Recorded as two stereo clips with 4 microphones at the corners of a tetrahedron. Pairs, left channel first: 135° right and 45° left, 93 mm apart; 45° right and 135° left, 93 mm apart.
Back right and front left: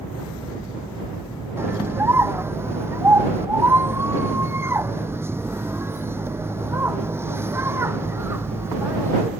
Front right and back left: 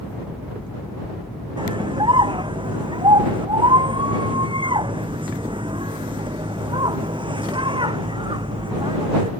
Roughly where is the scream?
Left.